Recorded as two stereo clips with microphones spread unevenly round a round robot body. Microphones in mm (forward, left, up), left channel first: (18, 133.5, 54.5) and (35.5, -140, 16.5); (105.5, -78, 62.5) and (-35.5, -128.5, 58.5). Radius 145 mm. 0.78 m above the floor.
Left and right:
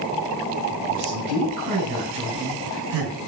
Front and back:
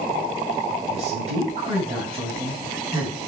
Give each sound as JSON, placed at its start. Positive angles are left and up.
{"t": 0.9, "sound": "a man speaking", "azimuth_deg": -120, "distance_m": 4.5}